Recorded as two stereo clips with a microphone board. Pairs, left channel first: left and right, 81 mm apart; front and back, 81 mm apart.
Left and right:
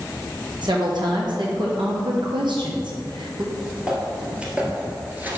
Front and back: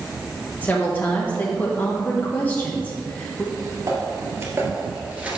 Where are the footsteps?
170° right, 1.9 m; by 5.4 s 120° right, 1.5 m.